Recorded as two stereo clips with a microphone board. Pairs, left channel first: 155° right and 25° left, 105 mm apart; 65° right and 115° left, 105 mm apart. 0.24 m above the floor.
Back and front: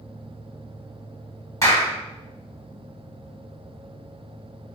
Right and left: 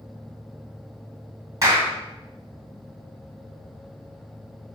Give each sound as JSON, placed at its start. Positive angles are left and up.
{"t": 1.6, "sound": "a clap", "azimuth_deg": 160, "distance_m": 1.2}